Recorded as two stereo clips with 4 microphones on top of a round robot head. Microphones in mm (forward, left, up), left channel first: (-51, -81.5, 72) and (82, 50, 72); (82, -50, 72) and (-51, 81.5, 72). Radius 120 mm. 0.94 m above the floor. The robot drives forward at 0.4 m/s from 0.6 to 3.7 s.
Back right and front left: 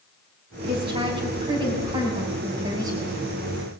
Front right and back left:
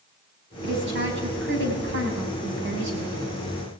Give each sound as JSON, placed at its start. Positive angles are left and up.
{"t": 0.6, "sound": "a woman speaking", "azimuth_deg": 105, "distance_m": 6.5}